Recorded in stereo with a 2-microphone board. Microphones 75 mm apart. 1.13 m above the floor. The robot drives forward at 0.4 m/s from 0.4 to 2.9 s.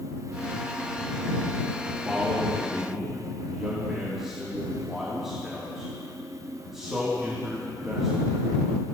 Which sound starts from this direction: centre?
A man speaking, at 2.0 s.